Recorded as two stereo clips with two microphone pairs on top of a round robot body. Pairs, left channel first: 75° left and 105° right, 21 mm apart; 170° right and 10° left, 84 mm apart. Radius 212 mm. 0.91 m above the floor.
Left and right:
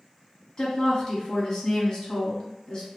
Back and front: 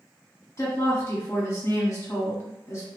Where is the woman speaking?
135° left, 1.1 m.